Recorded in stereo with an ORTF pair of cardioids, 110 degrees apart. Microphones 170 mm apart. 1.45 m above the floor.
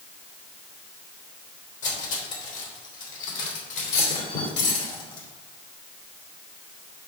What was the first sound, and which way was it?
Cutlery clinking, 50° left.